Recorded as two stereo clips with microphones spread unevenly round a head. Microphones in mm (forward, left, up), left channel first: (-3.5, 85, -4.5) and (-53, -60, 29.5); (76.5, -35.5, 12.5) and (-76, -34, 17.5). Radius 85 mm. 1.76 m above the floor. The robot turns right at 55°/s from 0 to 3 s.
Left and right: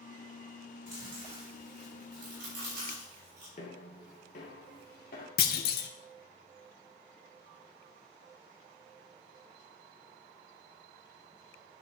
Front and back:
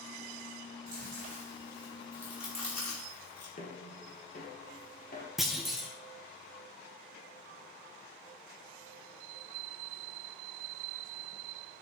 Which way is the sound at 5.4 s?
90° left.